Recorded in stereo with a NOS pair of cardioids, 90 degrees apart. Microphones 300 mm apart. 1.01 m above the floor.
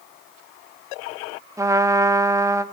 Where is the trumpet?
10° right, 1.3 m.